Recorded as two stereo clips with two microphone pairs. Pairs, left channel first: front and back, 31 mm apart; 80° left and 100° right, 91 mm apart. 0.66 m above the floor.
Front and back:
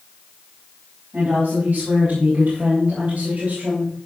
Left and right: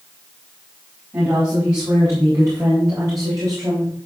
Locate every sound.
1.1 s a woman speaking: 155° right, 4.5 m; by 4.1 s 135° right, 3.5 m